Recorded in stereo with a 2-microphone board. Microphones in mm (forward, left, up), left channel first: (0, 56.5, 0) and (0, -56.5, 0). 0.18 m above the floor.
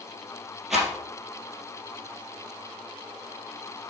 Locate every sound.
0.7 s a rattle: 5° right (ahead or behind), 3 m